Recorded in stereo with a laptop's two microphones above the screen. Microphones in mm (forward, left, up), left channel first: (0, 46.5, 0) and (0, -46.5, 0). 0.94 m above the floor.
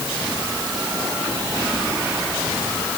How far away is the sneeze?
I don't hear a sneeze.